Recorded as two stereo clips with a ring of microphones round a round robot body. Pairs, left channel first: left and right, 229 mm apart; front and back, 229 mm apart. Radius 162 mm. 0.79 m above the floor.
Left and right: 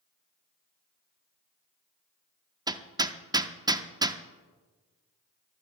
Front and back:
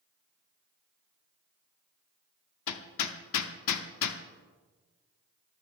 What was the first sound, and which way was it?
Hammering, 15° right.